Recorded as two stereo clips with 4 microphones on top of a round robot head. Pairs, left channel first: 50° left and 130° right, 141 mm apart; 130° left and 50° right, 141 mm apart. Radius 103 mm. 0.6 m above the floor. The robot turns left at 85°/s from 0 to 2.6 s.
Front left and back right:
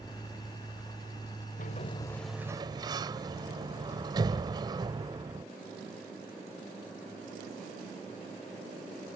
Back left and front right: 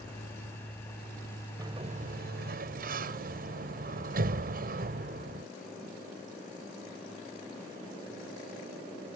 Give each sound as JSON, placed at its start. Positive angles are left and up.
{"t": 1.6, "sound": "a sliding door", "azimuth_deg": 20}